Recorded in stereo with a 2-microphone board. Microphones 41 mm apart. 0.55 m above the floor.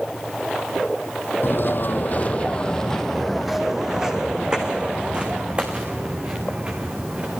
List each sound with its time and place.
1.4 s footsteps: 65° left (ahead or behind), 1.2 m; by 7.4 s 30° right (ahead or behind), 4 m